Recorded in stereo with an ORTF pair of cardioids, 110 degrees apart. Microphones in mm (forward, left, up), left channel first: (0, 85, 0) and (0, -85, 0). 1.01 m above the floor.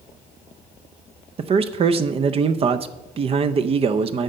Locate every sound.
1.4 s a man speaking: 35° right, 0.5 m